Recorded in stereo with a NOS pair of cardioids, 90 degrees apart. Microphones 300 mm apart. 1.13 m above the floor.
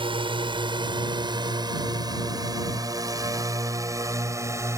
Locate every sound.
0.0 s a drone: 15° right; by 4.8 s 10° right